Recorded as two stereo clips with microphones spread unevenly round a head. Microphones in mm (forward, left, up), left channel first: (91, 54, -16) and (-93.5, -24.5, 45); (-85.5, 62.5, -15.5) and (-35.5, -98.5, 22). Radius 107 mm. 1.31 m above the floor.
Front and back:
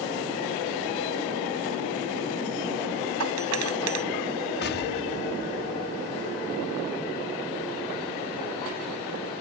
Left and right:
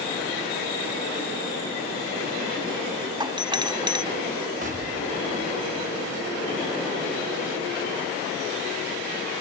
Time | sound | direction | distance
3.2 | a doorbell | 135° right | ?
4.6 | an explosion | 15° right | ?